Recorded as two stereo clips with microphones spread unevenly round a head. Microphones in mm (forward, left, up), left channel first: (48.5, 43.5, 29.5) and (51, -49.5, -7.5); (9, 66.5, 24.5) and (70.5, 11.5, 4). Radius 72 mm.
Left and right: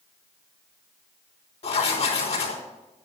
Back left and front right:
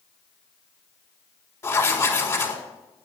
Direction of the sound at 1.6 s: 85° left.